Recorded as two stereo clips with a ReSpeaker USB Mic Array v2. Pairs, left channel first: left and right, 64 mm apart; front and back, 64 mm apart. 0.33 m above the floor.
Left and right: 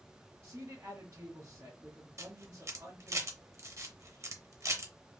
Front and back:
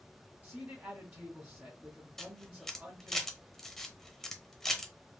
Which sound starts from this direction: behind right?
A man speaking, at 0.4 s.